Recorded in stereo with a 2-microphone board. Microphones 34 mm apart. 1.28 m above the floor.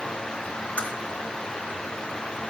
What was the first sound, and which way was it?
A crack, 40° left (ahead or behind).